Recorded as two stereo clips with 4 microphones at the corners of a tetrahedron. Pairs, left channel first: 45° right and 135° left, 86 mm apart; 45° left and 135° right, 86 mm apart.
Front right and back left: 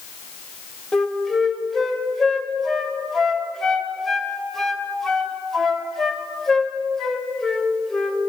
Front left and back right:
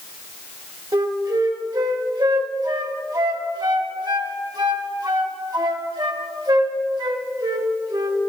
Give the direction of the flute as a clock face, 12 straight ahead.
4 o'clock.